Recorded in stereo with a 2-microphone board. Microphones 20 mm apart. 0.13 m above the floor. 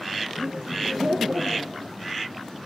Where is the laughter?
60° right (ahead or behind), 2.5 m.